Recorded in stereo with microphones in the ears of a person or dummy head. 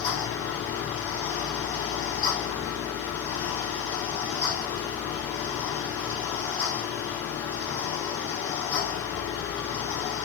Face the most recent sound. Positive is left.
turn(degrees=25)  # may be behind; listen again after turning